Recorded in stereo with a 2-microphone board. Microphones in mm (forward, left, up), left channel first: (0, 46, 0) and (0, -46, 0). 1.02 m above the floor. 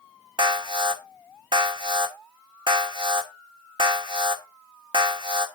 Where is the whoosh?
No whoosh in this recording.